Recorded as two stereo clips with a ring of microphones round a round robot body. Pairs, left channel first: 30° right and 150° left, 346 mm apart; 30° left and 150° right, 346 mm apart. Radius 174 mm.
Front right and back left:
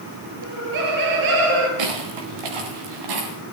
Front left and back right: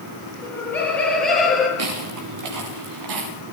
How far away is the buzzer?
I don't hear a buzzer.